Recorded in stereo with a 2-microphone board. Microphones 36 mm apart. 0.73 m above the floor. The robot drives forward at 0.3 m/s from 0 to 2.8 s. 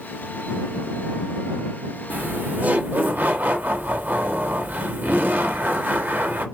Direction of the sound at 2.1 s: 50° right (ahead or behind).